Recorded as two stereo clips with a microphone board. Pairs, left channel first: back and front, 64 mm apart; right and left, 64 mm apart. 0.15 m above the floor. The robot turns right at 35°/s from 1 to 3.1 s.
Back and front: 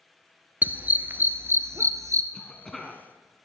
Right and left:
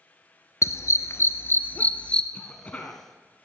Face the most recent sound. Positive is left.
turn(degrees=-90)